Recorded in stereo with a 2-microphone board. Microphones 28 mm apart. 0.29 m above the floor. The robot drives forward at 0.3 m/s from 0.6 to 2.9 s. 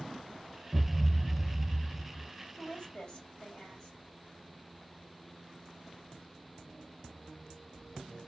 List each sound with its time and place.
0.7 s a thud: 70° left (ahead or behind), 1.2 m; by 2.3 s 85° left, 1.2 m
2.6 s a woman speaking: 35° left (ahead or behind), 1.7 m; by 4.0 s 30° left (ahead or behind), 1.8 m